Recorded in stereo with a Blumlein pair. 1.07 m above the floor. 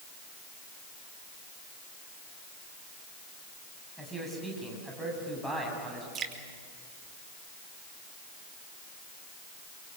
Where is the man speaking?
Straight ahead, 7.5 m.